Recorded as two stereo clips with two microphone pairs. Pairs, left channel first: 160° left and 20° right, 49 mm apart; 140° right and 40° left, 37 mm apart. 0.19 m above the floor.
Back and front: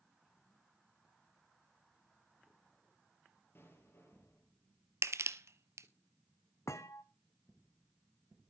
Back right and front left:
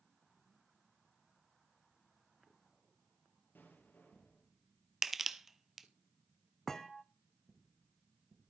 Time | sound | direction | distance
3.5 | an explosion | 160° right | 5 m
5.0 | crushing | 50° right | 0.7 m
6.7 | a thud | 140° left | 0.9 m